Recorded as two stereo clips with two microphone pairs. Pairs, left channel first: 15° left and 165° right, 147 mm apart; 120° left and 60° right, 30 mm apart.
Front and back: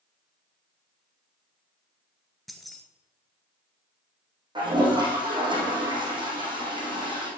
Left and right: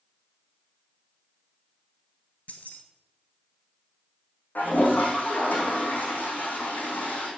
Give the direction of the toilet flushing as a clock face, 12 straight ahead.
8 o'clock.